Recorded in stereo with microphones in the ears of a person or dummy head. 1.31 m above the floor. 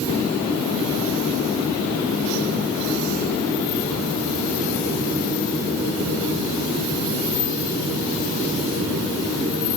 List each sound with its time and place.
Only background noise.